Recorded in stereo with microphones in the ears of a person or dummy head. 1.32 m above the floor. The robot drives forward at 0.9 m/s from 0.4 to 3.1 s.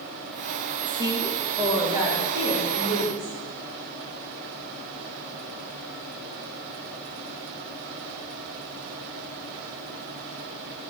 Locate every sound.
0.9 s a woman speaking: 20° right (ahead or behind), 1.3 m; by 3.4 s 10° right (ahead or behind), 3 m